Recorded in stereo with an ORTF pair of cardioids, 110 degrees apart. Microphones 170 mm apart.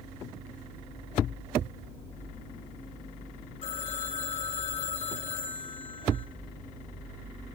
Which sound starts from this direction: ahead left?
A phone ringing, at 3.6 s.